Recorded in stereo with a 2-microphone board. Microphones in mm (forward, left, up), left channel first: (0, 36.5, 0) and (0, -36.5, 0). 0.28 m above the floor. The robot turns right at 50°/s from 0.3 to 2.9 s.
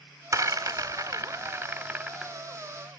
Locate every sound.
0.3 s a rattle: 50° right (ahead or behind), 0.7 m; by 2.3 s 5° right (ahead or behind), 0.7 m